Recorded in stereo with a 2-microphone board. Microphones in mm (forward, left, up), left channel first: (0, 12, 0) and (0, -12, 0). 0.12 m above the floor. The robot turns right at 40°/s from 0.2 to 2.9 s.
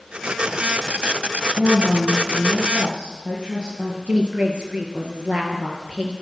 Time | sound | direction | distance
1.6 | a woman speaking | 100° right | 4.5 m
4.1 | a woman speaking | 55° right (ahead or behind) | 3 m